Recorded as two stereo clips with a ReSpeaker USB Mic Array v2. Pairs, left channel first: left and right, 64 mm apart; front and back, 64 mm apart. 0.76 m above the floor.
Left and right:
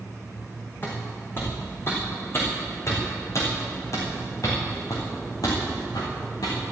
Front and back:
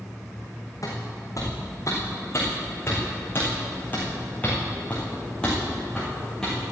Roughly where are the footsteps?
Ahead left.